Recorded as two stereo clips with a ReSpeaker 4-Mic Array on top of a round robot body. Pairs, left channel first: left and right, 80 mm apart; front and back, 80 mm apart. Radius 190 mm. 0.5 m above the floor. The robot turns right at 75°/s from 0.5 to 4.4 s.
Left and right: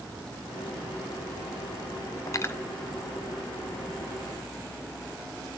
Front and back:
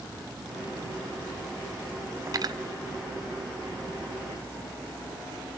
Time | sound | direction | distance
2.3 | cutlery clinking | 135° left | 1.3 m